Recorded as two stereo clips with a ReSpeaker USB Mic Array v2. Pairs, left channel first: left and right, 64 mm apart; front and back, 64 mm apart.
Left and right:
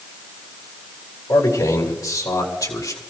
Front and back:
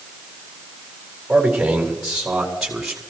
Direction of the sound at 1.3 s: 100° left.